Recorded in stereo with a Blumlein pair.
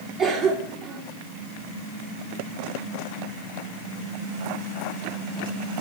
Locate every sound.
0.2 s a cough: 35° right, 3 m